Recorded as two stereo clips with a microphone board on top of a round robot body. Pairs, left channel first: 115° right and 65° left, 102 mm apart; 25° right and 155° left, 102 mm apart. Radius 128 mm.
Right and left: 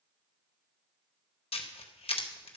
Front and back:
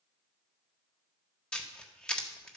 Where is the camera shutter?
100° right, 1.5 m.